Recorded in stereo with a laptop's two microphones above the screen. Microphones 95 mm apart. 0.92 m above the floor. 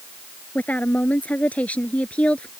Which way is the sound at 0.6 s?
15° left (ahead or behind).